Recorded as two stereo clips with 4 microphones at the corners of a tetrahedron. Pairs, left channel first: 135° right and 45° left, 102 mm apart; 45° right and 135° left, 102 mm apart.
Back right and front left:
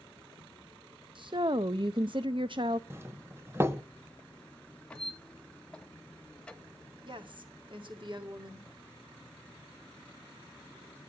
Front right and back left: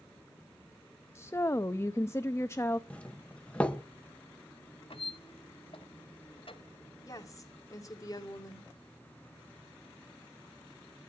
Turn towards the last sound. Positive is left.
turn(degrees=10)